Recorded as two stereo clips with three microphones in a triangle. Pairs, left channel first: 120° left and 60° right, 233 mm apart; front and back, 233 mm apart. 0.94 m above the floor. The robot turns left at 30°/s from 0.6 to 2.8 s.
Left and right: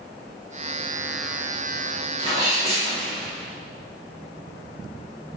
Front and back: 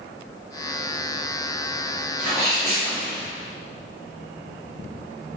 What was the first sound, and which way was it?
A sneeze, 100° right.